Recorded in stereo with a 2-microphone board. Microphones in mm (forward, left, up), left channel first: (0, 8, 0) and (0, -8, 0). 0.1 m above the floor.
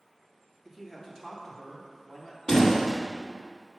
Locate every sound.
0.7 s a man speaking: 20° left (ahead or behind), 1.3 m; by 2.4 s 30° left (ahead or behind), 2.0 m
2.5 s a door slam: 40° left (ahead or behind), 2 m